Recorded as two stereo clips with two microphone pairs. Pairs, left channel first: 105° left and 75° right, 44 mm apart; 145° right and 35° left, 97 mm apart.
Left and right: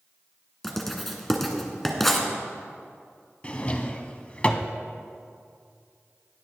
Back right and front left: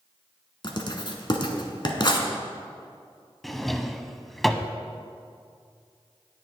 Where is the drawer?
120° left, 0.5 m.